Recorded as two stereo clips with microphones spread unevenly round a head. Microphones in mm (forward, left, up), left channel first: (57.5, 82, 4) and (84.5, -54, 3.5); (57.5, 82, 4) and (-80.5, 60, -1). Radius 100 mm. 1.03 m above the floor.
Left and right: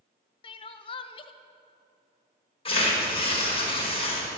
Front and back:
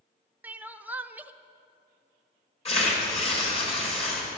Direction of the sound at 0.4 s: 120° left.